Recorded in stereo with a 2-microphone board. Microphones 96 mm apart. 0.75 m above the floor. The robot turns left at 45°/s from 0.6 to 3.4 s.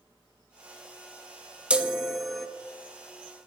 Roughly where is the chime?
Centre.